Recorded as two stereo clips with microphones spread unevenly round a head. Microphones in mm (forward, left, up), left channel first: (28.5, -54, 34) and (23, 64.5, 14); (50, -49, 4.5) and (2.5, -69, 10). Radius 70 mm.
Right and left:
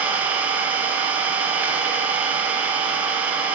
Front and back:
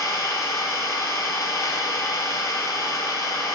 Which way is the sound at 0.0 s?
15° left.